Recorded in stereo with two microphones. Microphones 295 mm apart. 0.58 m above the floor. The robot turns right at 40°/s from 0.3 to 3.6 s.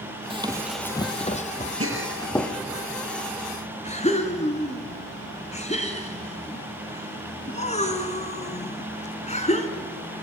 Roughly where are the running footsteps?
Centre.